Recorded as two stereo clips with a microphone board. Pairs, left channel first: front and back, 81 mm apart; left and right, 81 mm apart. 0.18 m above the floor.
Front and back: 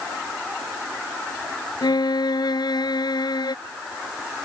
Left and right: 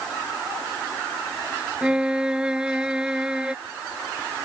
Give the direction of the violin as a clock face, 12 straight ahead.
12 o'clock.